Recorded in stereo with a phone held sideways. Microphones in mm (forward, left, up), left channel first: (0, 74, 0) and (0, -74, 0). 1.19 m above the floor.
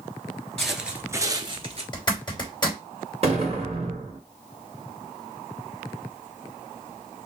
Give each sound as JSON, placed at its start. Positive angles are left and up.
{"t": 0.6, "sound": "footsteps", "side_deg": 5, "distance_m": 1.3}
{"t": 1.9, "sound": "a zipper", "side_deg": 30, "distance_m": 3.0}
{"t": 3.2, "sound": "an explosion", "side_deg": -45, "distance_m": 1.8}